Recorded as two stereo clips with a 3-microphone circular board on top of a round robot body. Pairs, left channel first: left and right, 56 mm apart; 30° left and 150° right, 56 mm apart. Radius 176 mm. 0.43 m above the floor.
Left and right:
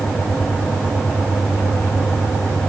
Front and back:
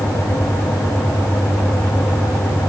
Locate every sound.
Only background noise.